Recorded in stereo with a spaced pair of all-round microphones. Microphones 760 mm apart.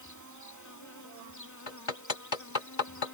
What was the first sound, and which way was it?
An insect, 25° left (ahead or behind).